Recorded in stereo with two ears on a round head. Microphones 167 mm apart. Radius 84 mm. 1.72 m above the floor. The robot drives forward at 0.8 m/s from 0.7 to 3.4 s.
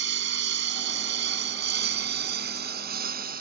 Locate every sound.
0.0 s a lawn mower: 65° right (ahead or behind); by 3.4 s 50° right (ahead or behind)